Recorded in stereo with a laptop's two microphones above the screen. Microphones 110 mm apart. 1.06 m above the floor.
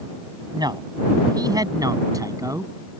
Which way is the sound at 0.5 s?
40° right (ahead or behind).